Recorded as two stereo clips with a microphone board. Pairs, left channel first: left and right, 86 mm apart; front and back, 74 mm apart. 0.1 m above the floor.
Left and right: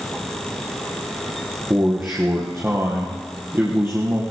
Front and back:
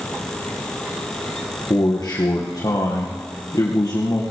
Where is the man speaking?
30° right, 2.5 m.